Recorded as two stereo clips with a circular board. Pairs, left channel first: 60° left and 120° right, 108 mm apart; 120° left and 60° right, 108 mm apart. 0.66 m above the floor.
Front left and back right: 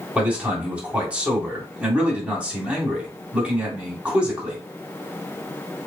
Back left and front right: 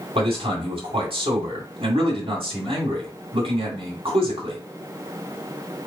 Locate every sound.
0.1 s a man speaking: 45° right, 1.9 m